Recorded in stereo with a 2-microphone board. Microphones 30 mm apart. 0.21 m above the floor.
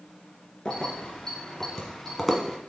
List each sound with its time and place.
0.7 s keys jangling: 20° left (ahead or behind), 1.8 m; by 2.6 s centre (ahead or behind), 1.0 m